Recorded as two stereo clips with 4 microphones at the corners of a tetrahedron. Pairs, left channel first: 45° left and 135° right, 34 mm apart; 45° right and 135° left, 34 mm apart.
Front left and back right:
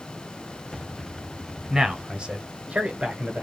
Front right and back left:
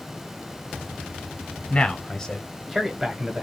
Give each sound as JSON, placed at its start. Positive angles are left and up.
{"t": 1.7, "sound": "a man speaking", "azimuth_deg": -70, "distance_m": 1.3}